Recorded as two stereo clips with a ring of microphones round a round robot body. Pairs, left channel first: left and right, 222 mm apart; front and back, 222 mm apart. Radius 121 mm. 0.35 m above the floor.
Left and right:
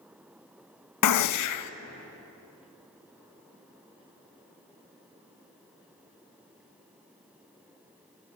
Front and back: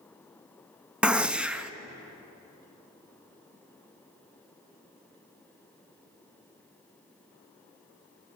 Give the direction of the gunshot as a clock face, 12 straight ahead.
9 o'clock.